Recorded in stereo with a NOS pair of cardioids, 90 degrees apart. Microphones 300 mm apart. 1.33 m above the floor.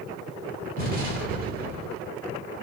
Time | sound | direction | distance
0.8 | an explosion | 30° right | 2.5 m